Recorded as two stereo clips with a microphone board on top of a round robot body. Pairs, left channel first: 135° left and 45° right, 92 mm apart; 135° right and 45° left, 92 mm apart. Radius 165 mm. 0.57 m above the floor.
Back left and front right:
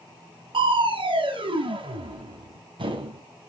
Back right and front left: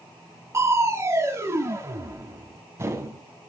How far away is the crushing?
About 2.5 m.